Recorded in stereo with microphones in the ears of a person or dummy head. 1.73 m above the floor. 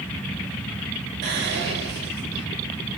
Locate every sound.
1.2 s whispering: 70° right (ahead or behind), 0.9 m